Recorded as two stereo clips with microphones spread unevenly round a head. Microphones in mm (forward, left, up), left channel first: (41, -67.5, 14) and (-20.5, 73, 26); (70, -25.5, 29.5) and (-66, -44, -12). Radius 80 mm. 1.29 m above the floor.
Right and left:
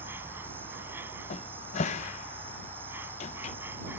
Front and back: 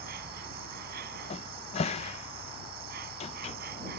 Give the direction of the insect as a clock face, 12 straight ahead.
6 o'clock.